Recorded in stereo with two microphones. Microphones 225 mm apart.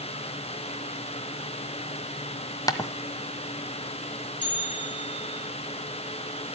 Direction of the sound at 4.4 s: 55° left (ahead or behind).